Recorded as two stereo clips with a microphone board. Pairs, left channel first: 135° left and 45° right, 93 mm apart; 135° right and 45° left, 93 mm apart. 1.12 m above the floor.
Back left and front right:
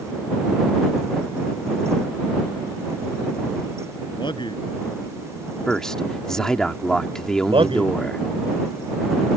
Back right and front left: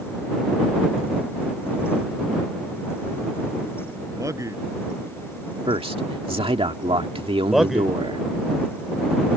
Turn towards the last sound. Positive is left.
turn(degrees=-40)